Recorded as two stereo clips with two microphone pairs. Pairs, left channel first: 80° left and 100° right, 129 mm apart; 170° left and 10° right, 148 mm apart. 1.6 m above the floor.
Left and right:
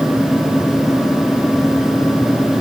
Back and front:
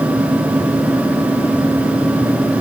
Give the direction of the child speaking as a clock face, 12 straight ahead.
I don't hear a child speaking.